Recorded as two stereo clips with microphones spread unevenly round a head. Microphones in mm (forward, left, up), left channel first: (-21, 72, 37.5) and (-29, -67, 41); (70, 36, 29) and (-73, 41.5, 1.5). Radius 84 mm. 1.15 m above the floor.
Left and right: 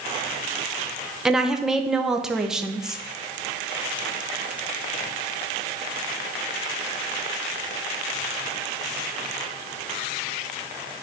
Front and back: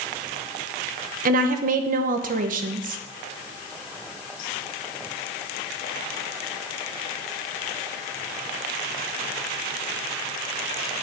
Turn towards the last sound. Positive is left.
turn(degrees=180)